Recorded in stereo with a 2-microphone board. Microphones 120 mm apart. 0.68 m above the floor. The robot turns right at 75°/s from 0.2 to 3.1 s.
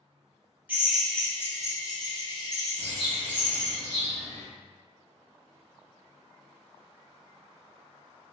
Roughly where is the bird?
Right.